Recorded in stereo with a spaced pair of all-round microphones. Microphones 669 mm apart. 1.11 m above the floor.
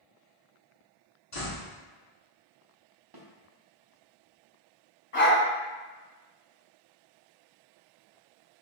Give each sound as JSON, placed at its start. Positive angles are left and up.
{"t": 1.3, "sound": "a door slam", "side_deg": 50, "distance_m": 1.4}
{"t": 3.1, "sound": "a snare drum", "side_deg": -35, "distance_m": 0.7}
{"t": 5.1, "sound": "a dog barking", "side_deg": 50, "distance_m": 1.3}